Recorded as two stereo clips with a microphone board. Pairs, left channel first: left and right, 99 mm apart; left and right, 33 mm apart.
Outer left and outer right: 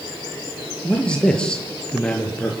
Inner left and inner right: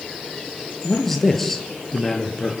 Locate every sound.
0.8 s a man speaking: 10° left (ahead or behind), 4.5 m